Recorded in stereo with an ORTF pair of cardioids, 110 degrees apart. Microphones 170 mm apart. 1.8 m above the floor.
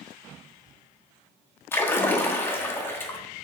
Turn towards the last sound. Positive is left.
turn(degrees=15)